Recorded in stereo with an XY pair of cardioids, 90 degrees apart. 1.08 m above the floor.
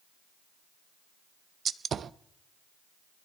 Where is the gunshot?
55° right, 0.7 m.